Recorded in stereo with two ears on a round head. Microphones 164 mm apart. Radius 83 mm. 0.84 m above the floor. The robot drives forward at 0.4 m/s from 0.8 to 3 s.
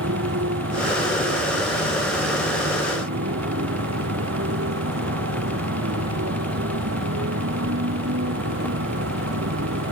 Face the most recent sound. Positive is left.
turn(degrees=-80)